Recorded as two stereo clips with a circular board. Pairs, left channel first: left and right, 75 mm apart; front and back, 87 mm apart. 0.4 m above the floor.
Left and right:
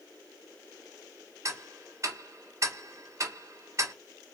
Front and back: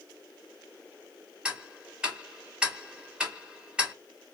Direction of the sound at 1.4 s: 105° right.